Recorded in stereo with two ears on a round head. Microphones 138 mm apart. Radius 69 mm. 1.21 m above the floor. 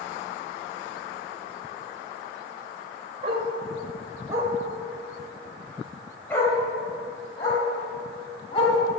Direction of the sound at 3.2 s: 40° right (ahead or behind).